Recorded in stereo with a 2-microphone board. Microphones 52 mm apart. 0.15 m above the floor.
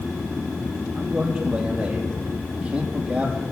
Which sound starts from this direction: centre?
A man speaking, at 0.9 s.